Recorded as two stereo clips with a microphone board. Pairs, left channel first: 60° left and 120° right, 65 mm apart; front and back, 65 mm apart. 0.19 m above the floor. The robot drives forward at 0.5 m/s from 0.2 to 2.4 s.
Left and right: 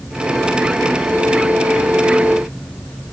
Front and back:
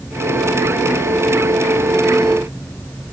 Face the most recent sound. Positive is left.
No sound to turn to.